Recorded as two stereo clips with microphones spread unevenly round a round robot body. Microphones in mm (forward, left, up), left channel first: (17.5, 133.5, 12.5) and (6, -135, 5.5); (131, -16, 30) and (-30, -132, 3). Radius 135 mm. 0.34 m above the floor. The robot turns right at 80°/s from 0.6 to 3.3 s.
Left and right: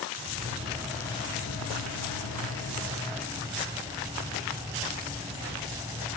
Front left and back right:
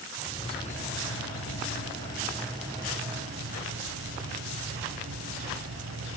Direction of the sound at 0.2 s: 25° right.